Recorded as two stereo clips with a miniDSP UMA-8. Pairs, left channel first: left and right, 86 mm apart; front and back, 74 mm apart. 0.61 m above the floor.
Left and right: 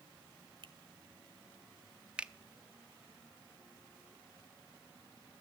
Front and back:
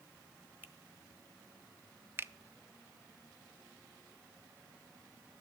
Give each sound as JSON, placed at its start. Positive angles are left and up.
{"t": 0.6, "sound": "a finger snap", "azimuth_deg": -115, "distance_m": 1.2}
{"t": 2.2, "sound": "a finger snap", "azimuth_deg": -155, "distance_m": 0.5}